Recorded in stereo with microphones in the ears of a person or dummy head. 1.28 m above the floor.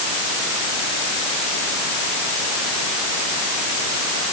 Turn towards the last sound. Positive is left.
No sound to turn to.